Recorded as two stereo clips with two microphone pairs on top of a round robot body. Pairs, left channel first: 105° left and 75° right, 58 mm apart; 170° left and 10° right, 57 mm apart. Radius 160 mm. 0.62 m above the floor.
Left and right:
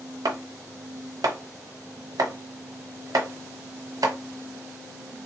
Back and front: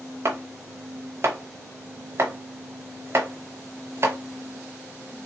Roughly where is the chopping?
Ahead right.